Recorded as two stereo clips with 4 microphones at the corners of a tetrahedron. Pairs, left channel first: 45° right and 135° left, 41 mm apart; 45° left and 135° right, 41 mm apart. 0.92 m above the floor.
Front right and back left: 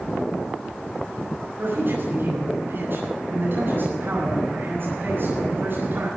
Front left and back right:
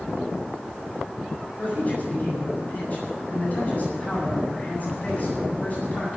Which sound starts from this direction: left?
A man speaking, at 1.6 s.